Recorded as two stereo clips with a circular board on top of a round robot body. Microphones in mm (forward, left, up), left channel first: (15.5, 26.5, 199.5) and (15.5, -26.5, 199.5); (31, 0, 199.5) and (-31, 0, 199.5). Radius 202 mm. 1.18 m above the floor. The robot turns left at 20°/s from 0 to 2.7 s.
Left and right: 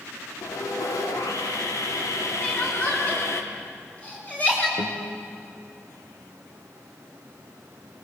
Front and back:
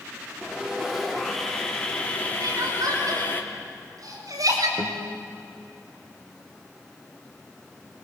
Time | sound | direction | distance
0.4 | sawing | 105° left | 2.5 m
2.4 | crying | 160° left | 5 m
4.8 | a guitar | 105° left | 1.8 m